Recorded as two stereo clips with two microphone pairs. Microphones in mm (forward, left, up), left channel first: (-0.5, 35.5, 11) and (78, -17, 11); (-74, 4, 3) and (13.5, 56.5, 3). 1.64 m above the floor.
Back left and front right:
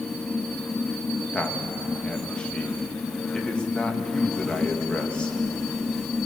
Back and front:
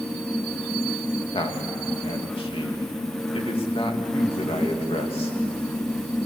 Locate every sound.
1.3 s a man speaking: 135° right, 2.5 m